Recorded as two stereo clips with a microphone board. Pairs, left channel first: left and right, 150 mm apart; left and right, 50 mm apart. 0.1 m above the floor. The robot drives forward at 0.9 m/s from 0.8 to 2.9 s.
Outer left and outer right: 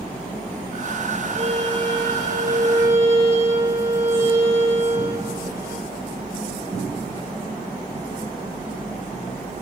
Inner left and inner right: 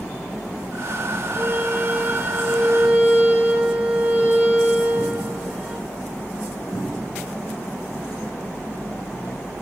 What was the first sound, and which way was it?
A violin, 40° right (ahead or behind).